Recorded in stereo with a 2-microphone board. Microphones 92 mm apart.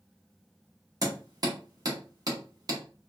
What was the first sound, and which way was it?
Hammering, 45° right (ahead or behind).